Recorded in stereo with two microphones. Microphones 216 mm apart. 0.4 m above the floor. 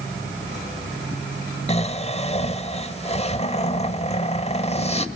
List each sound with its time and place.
1.7 s snoring: 30° left (ahead or behind), 1.0 m